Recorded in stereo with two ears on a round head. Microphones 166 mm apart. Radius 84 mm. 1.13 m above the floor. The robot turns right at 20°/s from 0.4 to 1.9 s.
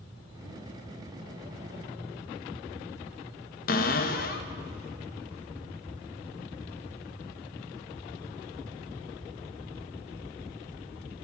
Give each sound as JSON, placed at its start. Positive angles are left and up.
{"t": 3.7, "sound": "a cupboard door", "side_deg": 50, "distance_m": 0.6}